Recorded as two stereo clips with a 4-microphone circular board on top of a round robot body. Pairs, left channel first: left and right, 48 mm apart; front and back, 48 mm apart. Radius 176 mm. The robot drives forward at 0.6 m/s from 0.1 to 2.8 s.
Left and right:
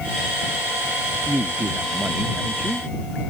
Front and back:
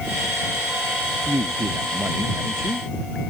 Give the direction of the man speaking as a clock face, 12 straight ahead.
5 o'clock.